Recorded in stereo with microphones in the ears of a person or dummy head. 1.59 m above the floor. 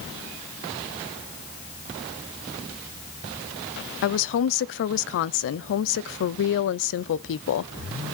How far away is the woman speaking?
About 0.5 m.